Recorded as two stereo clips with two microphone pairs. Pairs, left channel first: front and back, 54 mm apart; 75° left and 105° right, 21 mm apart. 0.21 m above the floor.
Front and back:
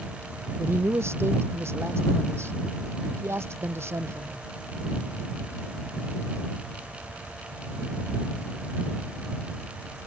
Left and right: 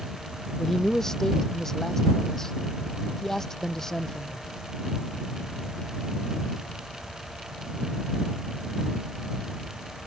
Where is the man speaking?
140° left.